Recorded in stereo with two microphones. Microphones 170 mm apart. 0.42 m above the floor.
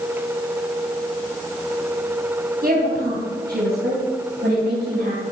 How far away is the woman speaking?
About 3 m.